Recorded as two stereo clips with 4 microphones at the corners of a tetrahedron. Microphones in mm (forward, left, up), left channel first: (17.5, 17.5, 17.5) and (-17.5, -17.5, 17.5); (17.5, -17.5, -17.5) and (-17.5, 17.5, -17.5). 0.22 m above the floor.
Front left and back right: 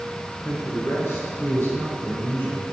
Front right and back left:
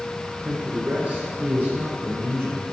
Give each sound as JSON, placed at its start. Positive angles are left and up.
{"t": 0.5, "sound": "a man speaking", "azimuth_deg": 70, "distance_m": 3.0}